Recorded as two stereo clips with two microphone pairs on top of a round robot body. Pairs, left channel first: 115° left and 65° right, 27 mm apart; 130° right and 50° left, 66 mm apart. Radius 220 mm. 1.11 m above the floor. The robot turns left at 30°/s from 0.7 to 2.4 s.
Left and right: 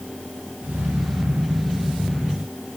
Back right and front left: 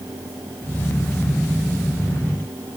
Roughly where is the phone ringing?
No phone ringing in this recording.